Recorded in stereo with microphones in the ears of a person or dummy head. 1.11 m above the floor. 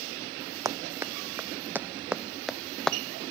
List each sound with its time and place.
0.7 s running footsteps: 25° right (ahead or behind); by 3.0 s centre (ahead or behind)